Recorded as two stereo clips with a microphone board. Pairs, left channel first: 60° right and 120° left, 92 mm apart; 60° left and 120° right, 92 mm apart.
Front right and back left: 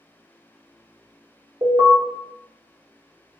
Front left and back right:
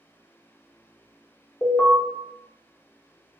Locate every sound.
1.6 s an alarm: 130° left, 0.8 m